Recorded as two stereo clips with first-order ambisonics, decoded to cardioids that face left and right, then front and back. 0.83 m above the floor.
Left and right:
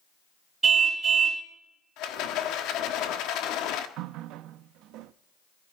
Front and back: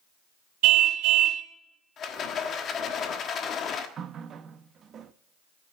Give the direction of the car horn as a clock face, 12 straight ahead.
5 o'clock.